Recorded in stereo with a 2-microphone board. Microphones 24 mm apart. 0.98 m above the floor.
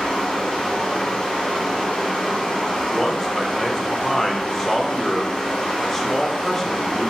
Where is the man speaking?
10° left (ahead or behind), 0.7 m.